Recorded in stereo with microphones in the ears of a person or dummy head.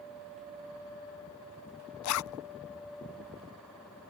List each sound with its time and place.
2.0 s a zipper: 85° left